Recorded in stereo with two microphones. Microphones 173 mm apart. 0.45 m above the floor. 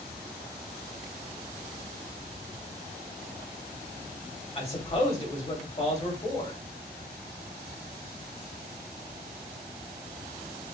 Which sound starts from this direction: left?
A man speaking, at 4.5 s.